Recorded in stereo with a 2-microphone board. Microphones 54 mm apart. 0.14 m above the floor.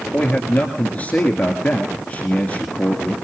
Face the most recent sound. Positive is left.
turn(degrees=30)  # may be behind; listen again after turning